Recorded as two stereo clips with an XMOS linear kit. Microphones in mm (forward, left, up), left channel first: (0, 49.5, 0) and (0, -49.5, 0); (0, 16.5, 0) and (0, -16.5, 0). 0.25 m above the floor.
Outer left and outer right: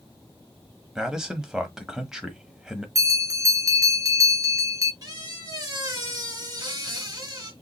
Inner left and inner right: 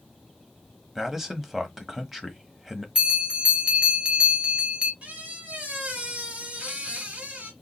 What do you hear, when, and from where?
0.9 s a man speaking: 5° right (ahead or behind), 1.0 m
3.0 s a bell: 35° right (ahead or behind), 1.2 m
5.0 s a squeak: 40° right (ahead or behind), 1.7 m